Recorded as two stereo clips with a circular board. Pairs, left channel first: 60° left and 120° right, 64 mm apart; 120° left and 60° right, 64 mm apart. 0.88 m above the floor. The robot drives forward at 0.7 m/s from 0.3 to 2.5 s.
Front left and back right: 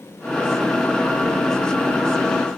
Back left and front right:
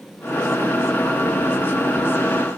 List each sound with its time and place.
Only background noise.